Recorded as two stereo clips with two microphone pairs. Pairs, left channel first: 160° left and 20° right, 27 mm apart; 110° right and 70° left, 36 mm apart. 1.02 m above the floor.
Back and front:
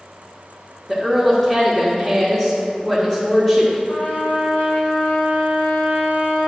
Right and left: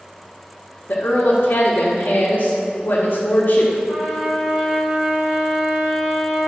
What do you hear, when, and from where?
0.9 s a woman speaking: 120° right, 1.3 m
3.9 s a trumpet: 150° left, 2.0 m